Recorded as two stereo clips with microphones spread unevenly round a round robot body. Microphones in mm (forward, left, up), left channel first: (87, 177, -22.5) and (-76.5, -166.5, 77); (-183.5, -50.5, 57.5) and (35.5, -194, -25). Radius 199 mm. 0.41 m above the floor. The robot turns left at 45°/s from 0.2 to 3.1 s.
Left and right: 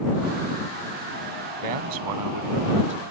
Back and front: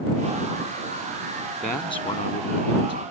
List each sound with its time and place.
1.6 s a man speaking: 125° right; by 3.0 s 175° left